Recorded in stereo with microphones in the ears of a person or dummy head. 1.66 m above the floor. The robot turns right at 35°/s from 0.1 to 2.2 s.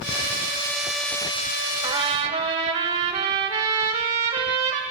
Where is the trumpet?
25° right (ahead or behind), 2.5 m; by 4.8 s 35° right (ahead or behind), 2.5 m.